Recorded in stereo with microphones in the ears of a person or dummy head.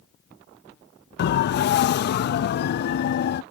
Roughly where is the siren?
Left.